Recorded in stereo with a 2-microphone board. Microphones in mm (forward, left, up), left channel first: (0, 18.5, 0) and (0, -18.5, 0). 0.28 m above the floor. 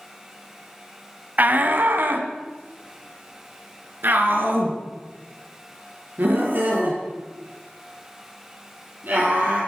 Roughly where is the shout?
Right.